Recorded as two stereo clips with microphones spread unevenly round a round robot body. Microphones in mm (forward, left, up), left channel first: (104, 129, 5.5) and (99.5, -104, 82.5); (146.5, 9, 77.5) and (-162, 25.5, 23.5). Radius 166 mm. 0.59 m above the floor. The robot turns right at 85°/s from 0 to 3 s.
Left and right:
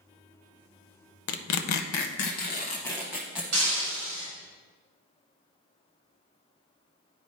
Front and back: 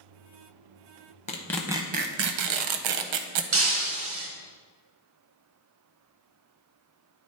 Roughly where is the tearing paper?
Ahead left.